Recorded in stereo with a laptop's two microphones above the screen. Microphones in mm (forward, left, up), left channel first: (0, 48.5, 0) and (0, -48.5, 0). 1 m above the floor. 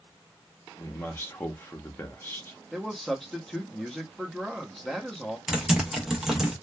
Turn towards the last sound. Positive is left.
turn(degrees=-5)  # may be behind; listen again after turning